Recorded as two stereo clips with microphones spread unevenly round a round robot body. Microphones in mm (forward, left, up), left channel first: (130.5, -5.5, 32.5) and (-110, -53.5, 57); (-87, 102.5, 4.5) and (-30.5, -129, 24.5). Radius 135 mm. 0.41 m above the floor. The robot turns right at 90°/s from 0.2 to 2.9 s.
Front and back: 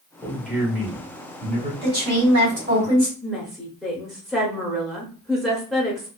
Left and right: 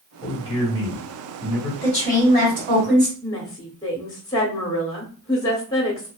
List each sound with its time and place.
0.2 s a man speaking: 70° left, 1.2 m; by 1.7 s 155° right, 1.2 m
1.8 s a woman speaking: 160° left, 1.8 m; by 3.1 s 100° right, 1.8 m
3.2 s a woman speaking: 85° left, 0.7 m